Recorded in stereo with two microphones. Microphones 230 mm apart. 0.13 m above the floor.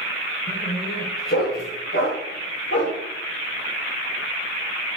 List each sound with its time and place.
0.5 s a dog barking: 55° left (ahead or behind), 6.5 m; by 3.0 s 65° left (ahead or behind), 6.5 m